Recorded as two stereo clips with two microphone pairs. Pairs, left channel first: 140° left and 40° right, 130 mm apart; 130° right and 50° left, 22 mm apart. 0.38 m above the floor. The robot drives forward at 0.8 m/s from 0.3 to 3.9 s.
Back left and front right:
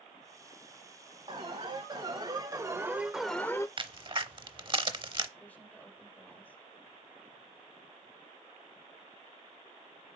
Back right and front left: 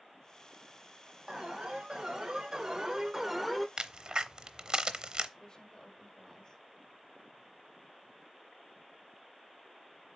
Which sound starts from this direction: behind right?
A woman speaking, at 5.4 s.